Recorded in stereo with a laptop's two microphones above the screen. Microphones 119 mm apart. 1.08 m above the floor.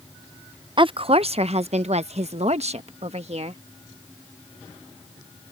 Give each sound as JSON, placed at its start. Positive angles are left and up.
{"t": 0.8, "sound": "a woman speaking", "side_deg": -45}